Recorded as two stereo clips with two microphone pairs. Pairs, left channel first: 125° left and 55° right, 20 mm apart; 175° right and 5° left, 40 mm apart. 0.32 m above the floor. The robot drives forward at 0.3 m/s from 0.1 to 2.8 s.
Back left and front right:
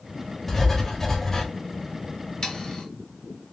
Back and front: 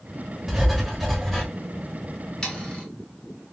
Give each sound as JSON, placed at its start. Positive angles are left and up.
{"t": 0.5, "sound": "writing", "azimuth_deg": 85, "distance_m": 1.2}
{"t": 2.4, "sound": "sawing", "azimuth_deg": 125, "distance_m": 1.1}